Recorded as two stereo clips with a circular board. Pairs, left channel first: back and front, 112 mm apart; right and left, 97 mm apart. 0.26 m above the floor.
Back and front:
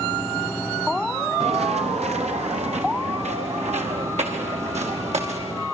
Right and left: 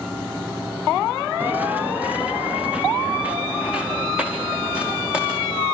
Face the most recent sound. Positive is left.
turn(degrees=10)